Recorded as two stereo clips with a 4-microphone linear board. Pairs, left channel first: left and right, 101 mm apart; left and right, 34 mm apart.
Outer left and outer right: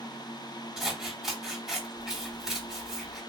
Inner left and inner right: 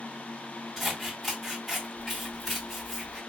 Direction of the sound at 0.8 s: 5° right (ahead or behind).